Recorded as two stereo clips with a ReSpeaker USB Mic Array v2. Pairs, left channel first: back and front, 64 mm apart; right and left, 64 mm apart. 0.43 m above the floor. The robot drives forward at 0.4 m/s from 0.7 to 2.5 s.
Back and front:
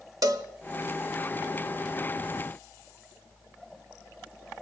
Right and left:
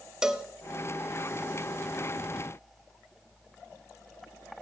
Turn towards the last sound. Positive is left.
turn(degrees=155)